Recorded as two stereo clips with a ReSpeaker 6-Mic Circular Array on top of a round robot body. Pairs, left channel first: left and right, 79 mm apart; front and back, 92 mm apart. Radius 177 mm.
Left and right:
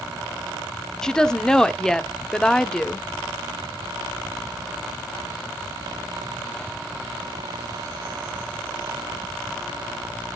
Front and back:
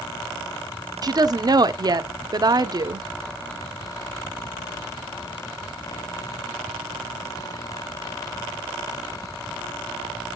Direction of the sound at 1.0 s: 170° left.